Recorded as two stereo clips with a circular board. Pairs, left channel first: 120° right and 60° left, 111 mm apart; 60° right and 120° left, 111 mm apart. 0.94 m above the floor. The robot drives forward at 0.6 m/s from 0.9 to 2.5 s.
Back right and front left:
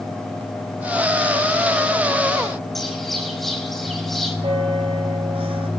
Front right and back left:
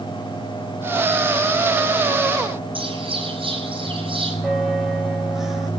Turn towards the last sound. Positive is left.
turn(degrees=30)